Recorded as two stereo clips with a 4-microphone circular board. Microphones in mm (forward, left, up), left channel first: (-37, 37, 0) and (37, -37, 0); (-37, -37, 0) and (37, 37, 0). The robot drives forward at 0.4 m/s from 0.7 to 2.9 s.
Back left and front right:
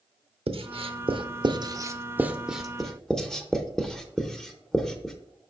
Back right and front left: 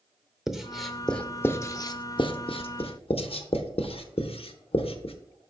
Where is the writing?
40° right, 0.6 m; by 5.2 s 140° right, 0.7 m.